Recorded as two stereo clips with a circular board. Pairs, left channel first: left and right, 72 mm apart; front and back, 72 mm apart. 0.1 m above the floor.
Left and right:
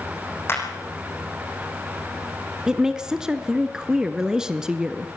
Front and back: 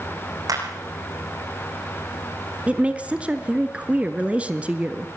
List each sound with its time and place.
0.5 s a clap: 145° left, 6 m
2.7 s a woman speaking: 150° right, 1.1 m